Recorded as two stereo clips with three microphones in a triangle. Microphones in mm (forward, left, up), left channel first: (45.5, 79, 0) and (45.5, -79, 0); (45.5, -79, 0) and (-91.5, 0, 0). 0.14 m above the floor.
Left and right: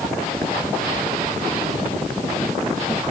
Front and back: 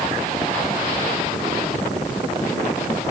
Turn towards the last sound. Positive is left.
No sound to turn to.